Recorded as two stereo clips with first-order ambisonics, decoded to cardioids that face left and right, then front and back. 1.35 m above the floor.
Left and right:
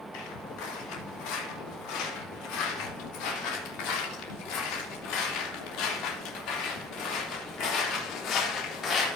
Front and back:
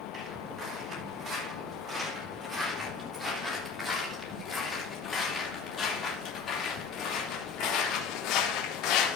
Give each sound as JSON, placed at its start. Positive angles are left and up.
{"t": 0.1, "sound": "footsteps", "azimuth_deg": 110, "distance_m": 4.5}